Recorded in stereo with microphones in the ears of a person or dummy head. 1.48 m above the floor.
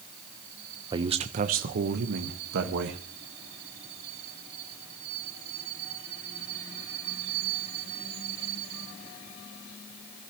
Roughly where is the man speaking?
Right.